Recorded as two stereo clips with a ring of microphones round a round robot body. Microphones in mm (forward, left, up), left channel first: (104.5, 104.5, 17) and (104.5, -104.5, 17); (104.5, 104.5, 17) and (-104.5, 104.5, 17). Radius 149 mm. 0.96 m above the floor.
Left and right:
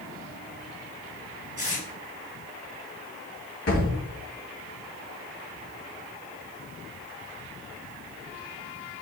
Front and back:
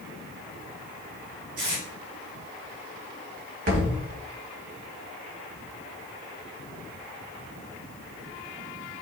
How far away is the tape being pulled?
About 3.5 m.